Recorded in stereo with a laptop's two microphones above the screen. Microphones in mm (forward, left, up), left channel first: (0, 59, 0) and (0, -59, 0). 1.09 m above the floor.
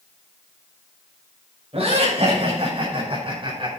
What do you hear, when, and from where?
1.7 s laughter: 60° right (ahead or behind), 6.5 m; by 3.7 s 45° right (ahead or behind), 5.5 m